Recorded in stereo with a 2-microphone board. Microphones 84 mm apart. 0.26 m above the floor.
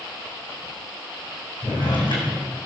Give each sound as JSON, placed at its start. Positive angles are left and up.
{"t": 1.6, "sound": "a drawer", "side_deg": 80, "distance_m": 4.5}